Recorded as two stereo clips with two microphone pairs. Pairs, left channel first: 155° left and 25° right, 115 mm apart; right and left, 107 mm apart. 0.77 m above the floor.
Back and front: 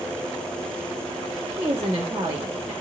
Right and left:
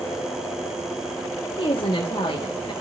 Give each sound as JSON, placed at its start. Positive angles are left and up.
{"t": 1.6, "sound": "a woman speaking", "azimuth_deg": -80, "distance_m": 1.8}